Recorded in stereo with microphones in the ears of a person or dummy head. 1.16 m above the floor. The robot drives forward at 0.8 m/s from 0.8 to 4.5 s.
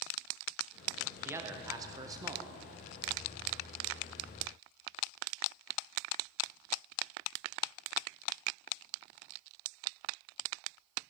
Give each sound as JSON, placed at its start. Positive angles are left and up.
{"t": 1.2, "sound": "a man speaking", "side_deg": -15, "distance_m": 1.0}